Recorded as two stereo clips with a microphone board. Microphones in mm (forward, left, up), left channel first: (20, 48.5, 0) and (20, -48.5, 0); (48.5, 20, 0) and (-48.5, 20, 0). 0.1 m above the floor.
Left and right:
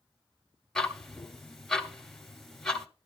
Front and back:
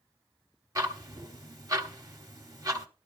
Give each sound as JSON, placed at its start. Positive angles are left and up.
{"t": 0.8, "sound": "ticking", "azimuth_deg": 175, "distance_m": 1.0}